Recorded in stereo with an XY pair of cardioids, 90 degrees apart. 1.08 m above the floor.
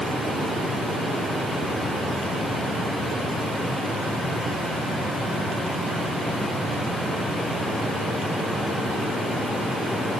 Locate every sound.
Only background noise.